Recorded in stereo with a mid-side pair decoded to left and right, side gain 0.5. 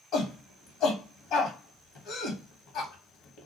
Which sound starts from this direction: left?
A shout, at 0.1 s.